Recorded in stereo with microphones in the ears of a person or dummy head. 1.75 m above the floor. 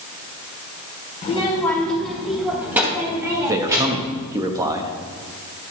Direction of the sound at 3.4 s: 20° right (ahead or behind).